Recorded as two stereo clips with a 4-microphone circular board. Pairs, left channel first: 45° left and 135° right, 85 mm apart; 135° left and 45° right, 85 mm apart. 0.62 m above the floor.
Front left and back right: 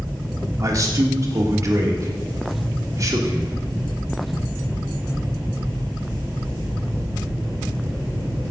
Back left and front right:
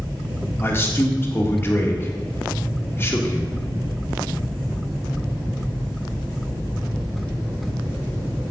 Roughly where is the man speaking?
Behind.